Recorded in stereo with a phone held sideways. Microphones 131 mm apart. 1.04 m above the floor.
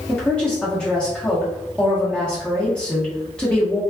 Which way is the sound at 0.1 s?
10° left (ahead or behind).